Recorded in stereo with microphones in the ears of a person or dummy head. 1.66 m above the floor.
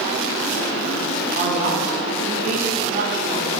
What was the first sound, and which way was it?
A woman speaking, 45° right (ahead or behind).